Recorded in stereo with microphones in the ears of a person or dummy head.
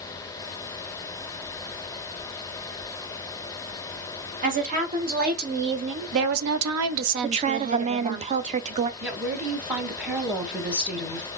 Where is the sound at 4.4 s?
40° right (ahead or behind), 1.7 m; by 8.2 s 30° right (ahead or behind), 1.0 m.